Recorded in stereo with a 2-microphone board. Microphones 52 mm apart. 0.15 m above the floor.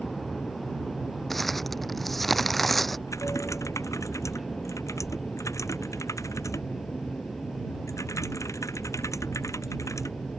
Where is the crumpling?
5° left (ahead or behind).